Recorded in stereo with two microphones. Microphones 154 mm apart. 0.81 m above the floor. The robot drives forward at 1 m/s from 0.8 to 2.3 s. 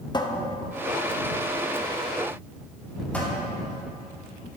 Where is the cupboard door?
30° left (ahead or behind), 0.6 m; by 3.3 s 10° left (ahead or behind), 1.8 m.